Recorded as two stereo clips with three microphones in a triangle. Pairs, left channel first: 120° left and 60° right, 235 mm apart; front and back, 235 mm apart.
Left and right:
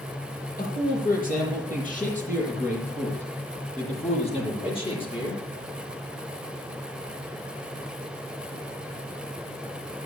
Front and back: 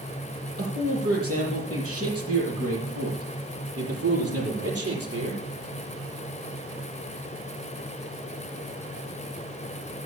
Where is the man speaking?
170° left, 8 m; by 5.4 s 170° right, 7.5 m.